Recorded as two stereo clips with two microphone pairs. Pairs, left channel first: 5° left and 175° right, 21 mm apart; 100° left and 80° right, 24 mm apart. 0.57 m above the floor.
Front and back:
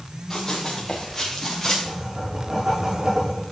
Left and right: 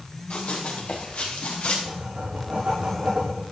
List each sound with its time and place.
0.3 s running footsteps: 75° left, 3.5 m; by 1.8 s 80° left, 4.5 m
1.9 s writing: 110° right, 6 m